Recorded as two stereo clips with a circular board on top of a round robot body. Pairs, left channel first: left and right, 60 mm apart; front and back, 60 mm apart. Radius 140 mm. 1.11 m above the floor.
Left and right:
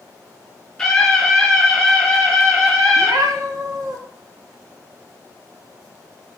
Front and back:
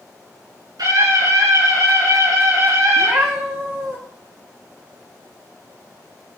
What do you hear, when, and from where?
0.8 s a scream: 175° left, 6.5 m; by 3.1 s straight behind, 8.5 m
3.0 s a cat meowing: 120° right, 0.9 m